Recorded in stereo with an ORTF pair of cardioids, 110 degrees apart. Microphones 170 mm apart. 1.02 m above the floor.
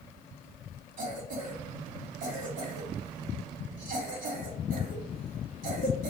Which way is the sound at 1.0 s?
60° right.